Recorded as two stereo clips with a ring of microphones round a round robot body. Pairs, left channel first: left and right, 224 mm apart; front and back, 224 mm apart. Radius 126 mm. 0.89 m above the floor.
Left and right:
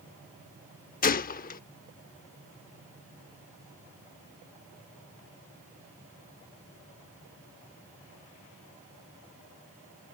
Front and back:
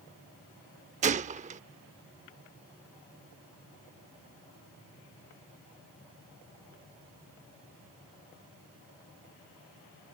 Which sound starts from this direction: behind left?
A gunshot, at 1.0 s.